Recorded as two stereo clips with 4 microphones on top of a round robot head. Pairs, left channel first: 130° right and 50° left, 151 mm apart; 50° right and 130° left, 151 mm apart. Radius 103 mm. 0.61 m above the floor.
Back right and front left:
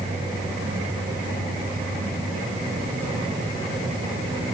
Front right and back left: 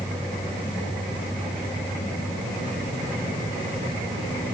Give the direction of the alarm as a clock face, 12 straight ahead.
No alarm in this recording.